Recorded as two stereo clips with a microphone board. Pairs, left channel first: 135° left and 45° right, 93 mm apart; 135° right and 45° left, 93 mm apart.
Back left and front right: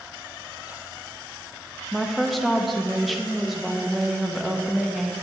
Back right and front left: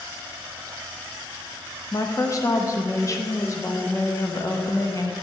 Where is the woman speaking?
135° right, 0.7 m.